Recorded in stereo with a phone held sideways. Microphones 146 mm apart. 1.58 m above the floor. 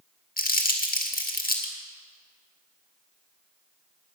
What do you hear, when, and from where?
0.4 s crumpling: 80° left, 1.9 m